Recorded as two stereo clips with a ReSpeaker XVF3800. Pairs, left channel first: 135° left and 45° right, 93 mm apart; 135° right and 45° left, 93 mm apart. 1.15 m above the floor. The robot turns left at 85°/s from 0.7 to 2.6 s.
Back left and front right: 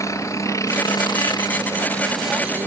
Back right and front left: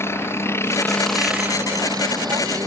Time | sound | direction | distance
0.0 | a helicopter | 175° left | ?